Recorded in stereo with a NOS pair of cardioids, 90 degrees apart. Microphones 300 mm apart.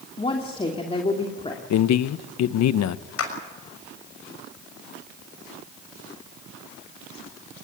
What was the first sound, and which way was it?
A woman speaking, 20° left.